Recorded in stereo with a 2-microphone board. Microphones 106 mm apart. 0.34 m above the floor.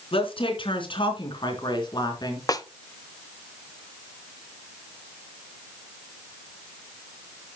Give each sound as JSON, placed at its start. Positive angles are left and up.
{"t": 0.1, "sound": "a woman speaking", "side_deg": 60, "distance_m": 4.0}
{"t": 2.5, "sound": "a snare drum", "side_deg": 35, "distance_m": 0.9}